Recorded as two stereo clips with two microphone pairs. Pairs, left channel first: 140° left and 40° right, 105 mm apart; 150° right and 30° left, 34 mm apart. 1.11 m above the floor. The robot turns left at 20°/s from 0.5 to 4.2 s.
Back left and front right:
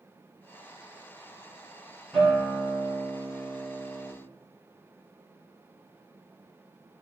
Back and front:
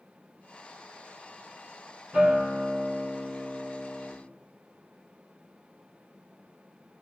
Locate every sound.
2.1 s a guitar: 60° left, 5 m; by 4.1 s 20° left, 5 m